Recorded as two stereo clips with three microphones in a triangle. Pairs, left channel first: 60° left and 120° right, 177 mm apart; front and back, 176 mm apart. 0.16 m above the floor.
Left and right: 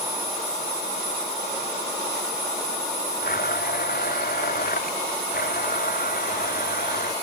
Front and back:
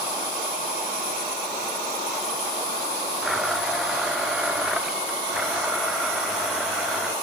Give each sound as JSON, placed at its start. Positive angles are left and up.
{"t": 3.2, "sound": "a blender", "azimuth_deg": 90}